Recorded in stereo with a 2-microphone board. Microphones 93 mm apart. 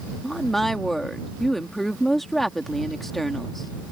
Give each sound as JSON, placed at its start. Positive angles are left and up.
{"t": 0.2, "sound": "a woman speaking", "side_deg": 5}